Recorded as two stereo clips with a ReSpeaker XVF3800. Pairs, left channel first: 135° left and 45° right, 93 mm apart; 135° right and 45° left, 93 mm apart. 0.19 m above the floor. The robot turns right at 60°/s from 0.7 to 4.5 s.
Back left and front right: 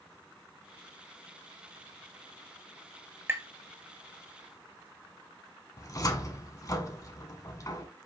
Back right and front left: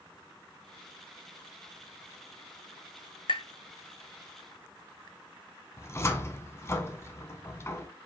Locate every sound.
3.3 s tapping: 110° right, 0.5 m; by 3.5 s 100° right, 0.5 m
5.8 s a cupboard door: 175° left, 0.6 m